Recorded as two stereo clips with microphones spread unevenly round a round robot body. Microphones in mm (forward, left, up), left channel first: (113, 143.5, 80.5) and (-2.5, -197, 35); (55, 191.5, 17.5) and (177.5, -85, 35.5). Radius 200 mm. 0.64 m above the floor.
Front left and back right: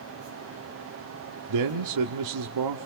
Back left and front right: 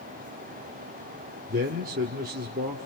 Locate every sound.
1.5 s a man speaking: 130° right, 1.3 m